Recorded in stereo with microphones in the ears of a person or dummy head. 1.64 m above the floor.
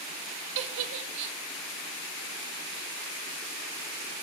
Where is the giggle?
65° right (ahead or behind), 0.5 m.